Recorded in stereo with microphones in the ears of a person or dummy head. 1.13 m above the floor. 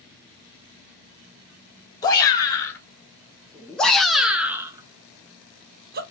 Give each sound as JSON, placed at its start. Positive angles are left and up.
{"t": 2.0, "sound": "a shout", "side_deg": 20, "distance_m": 2.0}